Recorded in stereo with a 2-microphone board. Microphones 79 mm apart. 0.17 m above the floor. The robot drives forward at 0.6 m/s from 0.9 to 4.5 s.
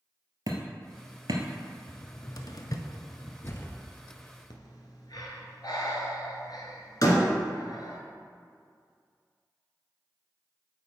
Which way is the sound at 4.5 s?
65° left (ahead or behind).